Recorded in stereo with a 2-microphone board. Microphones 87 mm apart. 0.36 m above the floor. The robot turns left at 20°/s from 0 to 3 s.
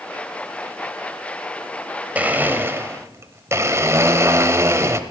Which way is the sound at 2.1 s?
15° right (ahead or behind).